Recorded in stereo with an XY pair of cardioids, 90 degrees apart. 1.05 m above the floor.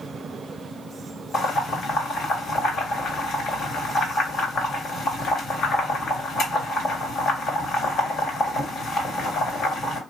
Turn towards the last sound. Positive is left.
turn(degrees=70)